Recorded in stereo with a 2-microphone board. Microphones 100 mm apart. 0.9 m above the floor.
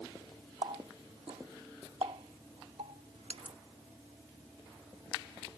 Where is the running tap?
85° right.